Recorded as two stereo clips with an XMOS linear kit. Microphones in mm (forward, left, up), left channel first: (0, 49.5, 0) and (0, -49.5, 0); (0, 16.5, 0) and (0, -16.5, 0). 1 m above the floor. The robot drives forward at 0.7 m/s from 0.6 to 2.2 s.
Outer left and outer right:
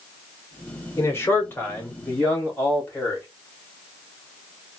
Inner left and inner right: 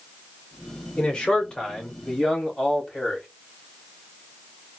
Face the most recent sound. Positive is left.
turn(degrees=20)  # may be behind; listen again after turning